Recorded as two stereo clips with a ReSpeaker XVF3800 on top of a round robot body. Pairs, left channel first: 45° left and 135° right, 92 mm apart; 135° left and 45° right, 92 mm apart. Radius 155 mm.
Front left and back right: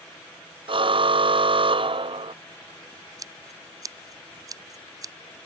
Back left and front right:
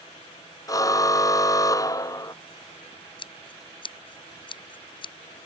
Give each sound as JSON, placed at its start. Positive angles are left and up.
{"t": 0.7, "sound": "a car horn", "azimuth_deg": -170}
{"t": 3.2, "sound": "scissors", "azimuth_deg": 170}